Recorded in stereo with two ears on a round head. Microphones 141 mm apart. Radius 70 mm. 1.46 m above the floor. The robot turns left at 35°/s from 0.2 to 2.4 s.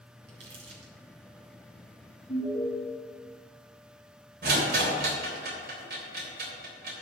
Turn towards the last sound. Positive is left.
turn(degrees=-65)  # may be behind; listen again after turning